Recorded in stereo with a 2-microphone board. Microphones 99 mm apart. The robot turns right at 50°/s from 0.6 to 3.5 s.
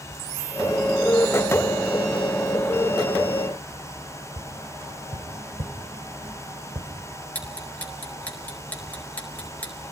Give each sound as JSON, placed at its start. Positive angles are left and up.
{"t": 4.4, "sound": "tapping", "side_deg": -80, "distance_m": 3.0}
{"t": 7.3, "sound": "ticking", "side_deg": 15, "distance_m": 5.0}